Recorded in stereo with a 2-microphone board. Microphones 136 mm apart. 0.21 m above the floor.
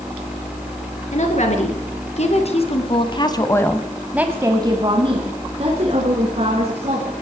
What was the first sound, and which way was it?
A woman speaking, 60° left (ahead or behind).